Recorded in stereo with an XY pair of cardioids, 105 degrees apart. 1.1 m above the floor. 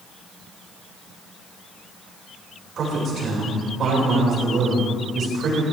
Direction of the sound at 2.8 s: 55° right.